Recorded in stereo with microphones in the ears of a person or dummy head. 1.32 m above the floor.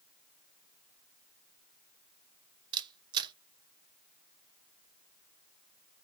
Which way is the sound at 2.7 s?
25° right (ahead or behind).